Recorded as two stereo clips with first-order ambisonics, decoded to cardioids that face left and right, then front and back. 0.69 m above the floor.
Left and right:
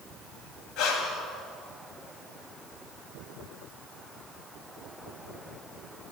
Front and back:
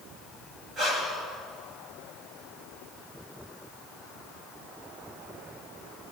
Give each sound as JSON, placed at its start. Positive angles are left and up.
{"t": 0.8, "sound": "breathing", "azimuth_deg": 115, "distance_m": 2.0}